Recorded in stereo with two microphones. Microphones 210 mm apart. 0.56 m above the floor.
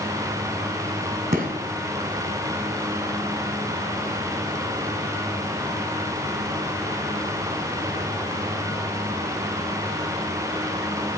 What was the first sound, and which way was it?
A gunshot, 45° right (ahead or behind).